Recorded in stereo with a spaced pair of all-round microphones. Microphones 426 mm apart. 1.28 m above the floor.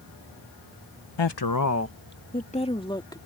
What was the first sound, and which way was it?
A woman speaking, 75° left (ahead or behind).